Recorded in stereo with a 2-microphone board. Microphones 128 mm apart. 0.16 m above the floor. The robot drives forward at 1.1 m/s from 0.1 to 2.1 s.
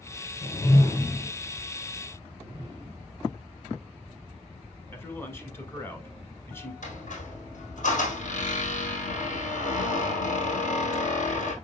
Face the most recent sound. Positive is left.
turn(degrees=75)  # may be behind; listen again after turning